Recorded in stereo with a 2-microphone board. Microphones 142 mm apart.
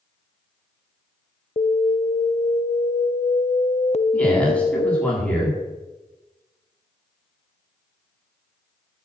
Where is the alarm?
45° left (ahead or behind), 0.6 m.